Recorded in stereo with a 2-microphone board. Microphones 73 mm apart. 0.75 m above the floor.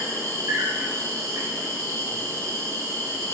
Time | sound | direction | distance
0.0 | an insect | 45° right (ahead or behind) | 0.9 m